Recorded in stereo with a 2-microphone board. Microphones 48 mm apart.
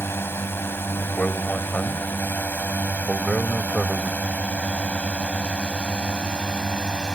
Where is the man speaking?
20° left (ahead or behind).